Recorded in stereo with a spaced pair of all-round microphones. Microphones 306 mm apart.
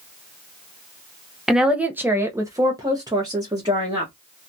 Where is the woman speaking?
Centre (ahead or behind), 0.6 m; by 4.1 s 15° right (ahead or behind), 1.2 m.